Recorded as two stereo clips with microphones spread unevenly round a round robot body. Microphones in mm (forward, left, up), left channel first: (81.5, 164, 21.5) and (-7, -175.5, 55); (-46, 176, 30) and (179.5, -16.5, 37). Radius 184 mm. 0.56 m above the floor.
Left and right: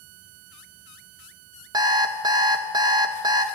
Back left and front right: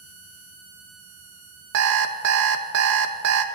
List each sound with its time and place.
1.7 s an alarm clock: 25° right, 0.5 m